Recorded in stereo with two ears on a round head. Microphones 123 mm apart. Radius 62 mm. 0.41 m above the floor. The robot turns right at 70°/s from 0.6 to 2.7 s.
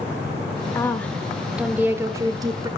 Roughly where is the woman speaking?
Centre.